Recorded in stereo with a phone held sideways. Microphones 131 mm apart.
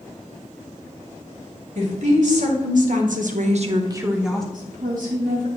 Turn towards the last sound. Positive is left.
turn(degrees=-85)